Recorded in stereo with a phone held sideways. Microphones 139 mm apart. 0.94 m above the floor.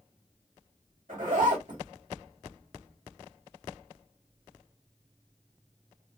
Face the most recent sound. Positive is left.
turn(degrees=-75)  # may be behind; listen again after turning